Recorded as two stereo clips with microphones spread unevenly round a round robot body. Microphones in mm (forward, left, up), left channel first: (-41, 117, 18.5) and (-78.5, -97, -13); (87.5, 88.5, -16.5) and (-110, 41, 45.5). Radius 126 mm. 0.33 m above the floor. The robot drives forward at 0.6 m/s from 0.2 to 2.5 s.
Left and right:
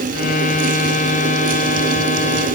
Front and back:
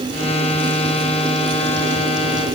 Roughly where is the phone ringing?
No phone ringing in this recording.